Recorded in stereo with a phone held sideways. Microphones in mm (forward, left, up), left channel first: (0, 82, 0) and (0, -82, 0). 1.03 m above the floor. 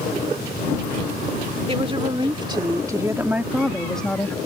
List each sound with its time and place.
1.7 s a woman speaking: 35° right (ahead or behind); by 4.4 s 15° left (ahead or behind)